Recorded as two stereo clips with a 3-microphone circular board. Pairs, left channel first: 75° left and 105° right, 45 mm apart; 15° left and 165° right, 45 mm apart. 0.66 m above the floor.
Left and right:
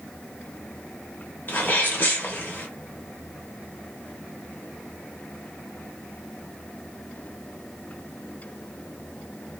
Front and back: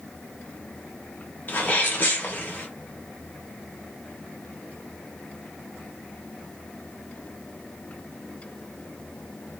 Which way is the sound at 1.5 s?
50° left.